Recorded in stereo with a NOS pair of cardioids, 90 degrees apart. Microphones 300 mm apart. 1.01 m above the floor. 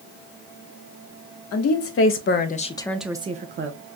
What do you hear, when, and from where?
1.5 s a woman speaking: 55° left, 0.9 m; by 3.8 s 45° right, 0.6 m